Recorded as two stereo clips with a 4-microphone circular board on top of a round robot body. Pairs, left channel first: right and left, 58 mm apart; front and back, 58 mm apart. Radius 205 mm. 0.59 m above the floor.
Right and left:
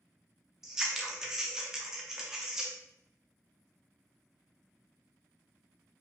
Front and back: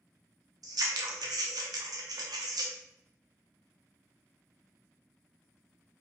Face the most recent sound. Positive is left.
turn(degrees=170)